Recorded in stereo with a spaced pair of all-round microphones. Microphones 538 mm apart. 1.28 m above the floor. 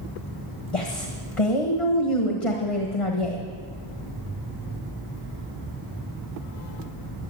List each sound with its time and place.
0.7 s a woman speaking: 80° left, 1.6 m